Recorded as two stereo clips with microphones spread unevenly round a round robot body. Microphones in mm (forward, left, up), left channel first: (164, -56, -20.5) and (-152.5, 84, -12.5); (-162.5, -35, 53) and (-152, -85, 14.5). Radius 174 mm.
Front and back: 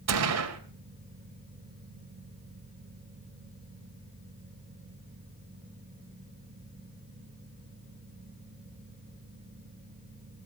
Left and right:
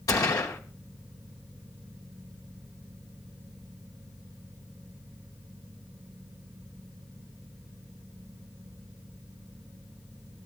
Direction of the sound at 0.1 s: 110° left.